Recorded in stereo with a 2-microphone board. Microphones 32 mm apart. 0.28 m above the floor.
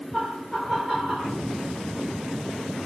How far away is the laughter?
About 5 m.